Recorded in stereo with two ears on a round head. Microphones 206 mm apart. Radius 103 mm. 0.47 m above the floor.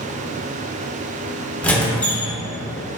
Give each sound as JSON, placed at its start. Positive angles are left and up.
{"t": 1.6, "sound": "a squeak", "side_deg": 5, "distance_m": 0.7}